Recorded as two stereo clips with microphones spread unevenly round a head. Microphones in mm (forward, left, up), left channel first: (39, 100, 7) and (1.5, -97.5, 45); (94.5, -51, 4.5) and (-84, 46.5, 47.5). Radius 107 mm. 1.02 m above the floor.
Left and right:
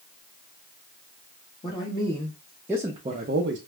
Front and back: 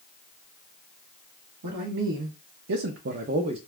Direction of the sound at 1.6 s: 145° left.